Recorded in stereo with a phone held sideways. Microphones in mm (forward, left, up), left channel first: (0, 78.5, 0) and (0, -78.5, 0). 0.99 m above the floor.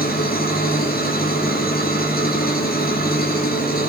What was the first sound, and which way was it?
An engine running, 70° left (ahead or behind).